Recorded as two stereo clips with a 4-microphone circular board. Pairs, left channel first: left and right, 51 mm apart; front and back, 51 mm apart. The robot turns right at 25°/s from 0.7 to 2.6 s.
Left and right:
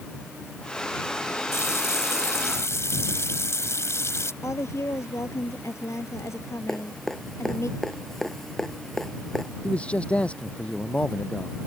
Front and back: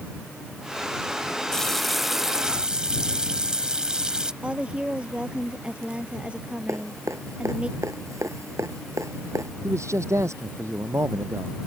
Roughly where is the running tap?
Left.